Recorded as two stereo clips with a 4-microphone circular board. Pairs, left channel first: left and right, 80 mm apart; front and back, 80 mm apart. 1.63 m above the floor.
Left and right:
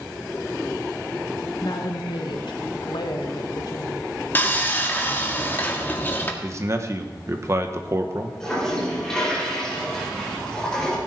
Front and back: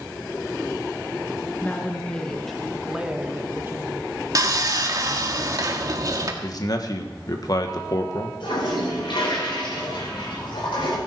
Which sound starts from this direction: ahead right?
A man speaking, at 6.4 s.